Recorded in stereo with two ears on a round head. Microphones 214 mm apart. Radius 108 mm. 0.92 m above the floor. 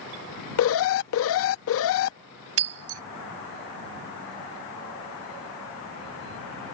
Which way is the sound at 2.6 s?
65° right (ahead or behind).